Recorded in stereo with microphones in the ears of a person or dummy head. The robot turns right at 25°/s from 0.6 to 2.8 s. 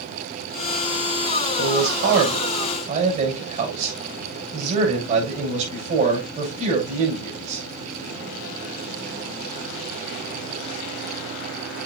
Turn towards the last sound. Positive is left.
turn(degrees=-40)  # may be behind; listen again after turning